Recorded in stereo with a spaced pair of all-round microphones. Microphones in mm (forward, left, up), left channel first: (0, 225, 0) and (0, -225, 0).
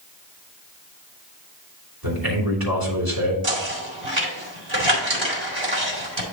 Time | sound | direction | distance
2.0 | a man speaking | 50° right (ahead or behind) | 3 m
3.4 | knocking | 80° right | 2 m